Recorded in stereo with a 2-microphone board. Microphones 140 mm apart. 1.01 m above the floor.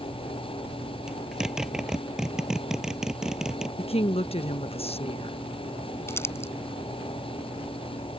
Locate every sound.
1.1 s a zipper: 5° right (ahead or behind)
3.8 s a woman speaking: 45° left (ahead or behind)
6.1 s crumpling: 20° left (ahead or behind)